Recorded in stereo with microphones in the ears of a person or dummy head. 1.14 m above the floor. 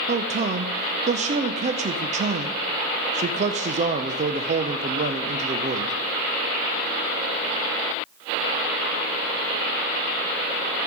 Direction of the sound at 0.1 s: 35° right (ahead or behind).